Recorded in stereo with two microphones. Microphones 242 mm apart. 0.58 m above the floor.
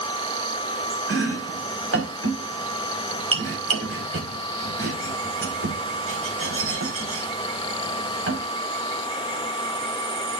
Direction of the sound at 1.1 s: 70° right (ahead or behind).